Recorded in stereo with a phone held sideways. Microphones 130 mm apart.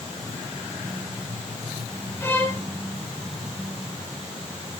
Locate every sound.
2.2 s a violin: 20° left (ahead or behind), 1.3 m